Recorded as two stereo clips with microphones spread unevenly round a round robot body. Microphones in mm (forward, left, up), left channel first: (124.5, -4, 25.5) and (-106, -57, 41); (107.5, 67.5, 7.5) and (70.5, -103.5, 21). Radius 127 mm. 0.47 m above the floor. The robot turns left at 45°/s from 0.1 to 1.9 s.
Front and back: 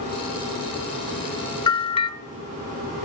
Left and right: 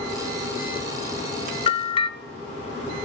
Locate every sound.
1.7 s a bell: 65° left, 0.5 m; by 2.1 s 55° left, 0.5 m